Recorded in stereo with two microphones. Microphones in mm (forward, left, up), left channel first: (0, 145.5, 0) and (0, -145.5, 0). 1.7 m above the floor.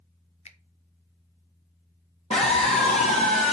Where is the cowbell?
I don't hear a cowbell.